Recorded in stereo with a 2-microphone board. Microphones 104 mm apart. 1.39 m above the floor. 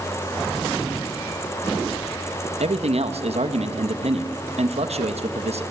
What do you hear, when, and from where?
2.6 s a man speaking: 75° right (ahead or behind), 1.7 m